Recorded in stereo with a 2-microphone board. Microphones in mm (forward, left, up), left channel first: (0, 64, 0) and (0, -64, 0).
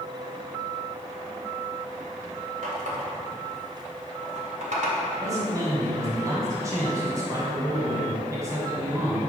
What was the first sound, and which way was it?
A running tap, 70° right (ahead or behind).